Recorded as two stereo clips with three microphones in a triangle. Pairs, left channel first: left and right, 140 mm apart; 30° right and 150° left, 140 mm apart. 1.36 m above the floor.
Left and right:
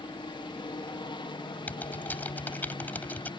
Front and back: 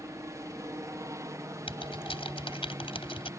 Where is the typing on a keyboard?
15° left.